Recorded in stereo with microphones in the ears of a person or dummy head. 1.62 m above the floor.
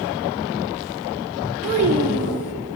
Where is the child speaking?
35° right (ahead or behind), 0.8 m.